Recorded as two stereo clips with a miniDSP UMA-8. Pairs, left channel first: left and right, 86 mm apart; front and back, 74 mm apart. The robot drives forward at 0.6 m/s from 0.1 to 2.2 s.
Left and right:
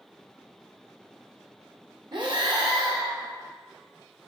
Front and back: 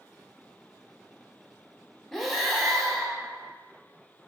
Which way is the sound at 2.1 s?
85° right.